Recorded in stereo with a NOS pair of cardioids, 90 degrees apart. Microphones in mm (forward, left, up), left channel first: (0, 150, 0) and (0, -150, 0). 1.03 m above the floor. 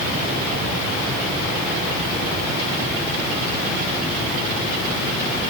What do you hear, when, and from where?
Only background noise.